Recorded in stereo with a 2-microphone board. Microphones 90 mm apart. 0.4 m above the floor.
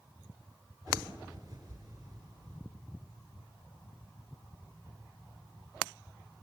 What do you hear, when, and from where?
0.9 s a bird: 50° right (ahead or behind), 4.5 m